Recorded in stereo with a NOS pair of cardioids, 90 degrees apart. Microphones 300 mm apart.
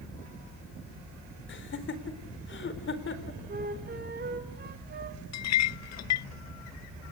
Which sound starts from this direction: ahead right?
A flute, at 3.5 s.